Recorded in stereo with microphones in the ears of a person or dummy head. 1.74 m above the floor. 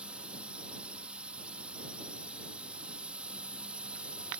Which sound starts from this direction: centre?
A drone, at 0.0 s.